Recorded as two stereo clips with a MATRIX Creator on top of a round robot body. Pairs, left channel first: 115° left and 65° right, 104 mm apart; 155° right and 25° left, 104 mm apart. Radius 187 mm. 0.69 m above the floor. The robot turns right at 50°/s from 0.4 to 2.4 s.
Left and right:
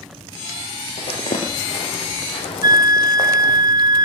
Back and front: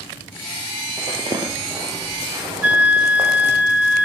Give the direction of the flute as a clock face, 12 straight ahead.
2 o'clock.